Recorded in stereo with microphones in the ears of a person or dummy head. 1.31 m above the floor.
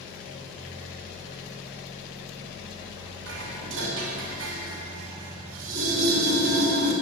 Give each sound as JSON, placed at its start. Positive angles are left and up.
{"t": 3.3, "sound": "dishes clattering", "side_deg": -80, "distance_m": 5.0}